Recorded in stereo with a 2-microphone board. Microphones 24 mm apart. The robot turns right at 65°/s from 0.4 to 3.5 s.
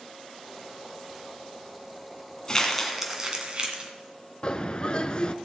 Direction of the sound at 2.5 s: 25° left (ahead or behind).